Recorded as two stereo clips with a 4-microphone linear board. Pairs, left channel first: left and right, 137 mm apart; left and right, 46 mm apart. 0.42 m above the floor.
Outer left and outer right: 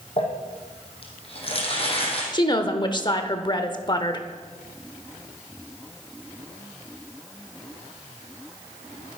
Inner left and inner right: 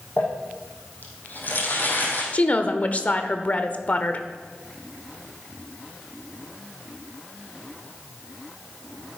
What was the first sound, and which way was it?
Crumpling, 45° left (ahead or behind).